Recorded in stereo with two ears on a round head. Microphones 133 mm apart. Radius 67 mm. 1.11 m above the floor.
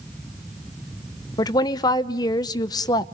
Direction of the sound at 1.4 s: 25° left (ahead or behind).